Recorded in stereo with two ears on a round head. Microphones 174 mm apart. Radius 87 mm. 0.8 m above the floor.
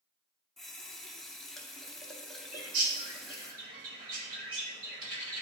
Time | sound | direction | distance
0.6 | a running tap | centre (ahead or behind) | 0.8 m
2.5 | a bird | 45° right (ahead or behind) | 1.5 m